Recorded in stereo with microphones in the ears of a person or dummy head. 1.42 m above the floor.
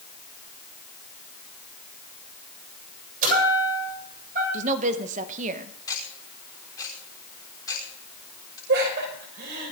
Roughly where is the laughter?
Right.